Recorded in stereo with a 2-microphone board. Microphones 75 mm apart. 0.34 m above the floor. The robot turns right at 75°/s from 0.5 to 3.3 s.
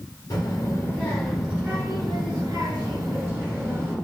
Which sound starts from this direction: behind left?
A child speaking, at 0.3 s.